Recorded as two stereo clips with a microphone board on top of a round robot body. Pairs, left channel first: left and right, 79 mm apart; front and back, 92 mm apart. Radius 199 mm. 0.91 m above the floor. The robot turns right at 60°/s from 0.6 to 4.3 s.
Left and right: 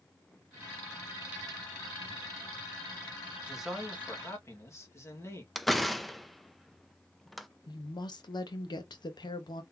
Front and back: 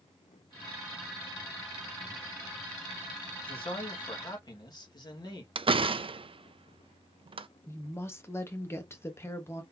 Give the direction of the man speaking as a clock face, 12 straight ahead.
12 o'clock.